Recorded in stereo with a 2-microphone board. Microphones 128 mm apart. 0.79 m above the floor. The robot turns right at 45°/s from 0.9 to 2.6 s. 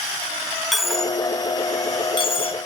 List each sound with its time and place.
0.7 s a dropped coin: centre (ahead or behind), 1.0 m; by 2.6 s 50° left (ahead or behind), 1.0 m